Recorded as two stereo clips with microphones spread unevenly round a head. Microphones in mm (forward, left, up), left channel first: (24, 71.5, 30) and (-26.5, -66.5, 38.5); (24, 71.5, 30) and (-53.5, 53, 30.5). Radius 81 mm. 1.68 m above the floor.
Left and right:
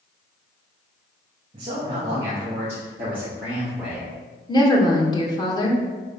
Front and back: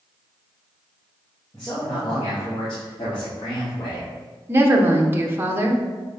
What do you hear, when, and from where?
1.5 s a man speaking: 55° right, 2 m; by 4.1 s 20° right, 3.5 m
4.5 s a woman speaking: 135° left, 1.4 m